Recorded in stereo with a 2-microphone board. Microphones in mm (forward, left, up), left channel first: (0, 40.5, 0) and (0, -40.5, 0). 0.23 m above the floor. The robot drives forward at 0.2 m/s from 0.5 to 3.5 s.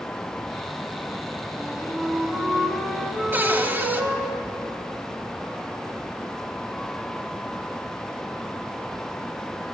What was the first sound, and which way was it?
A flute, centre (ahead or behind).